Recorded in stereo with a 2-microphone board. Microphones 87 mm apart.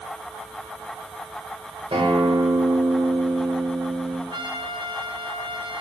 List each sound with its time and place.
1.9 s a guitar: 80° right, 6.5 m
4.3 s a trumpet: 70° right (ahead or behind), 1.2 m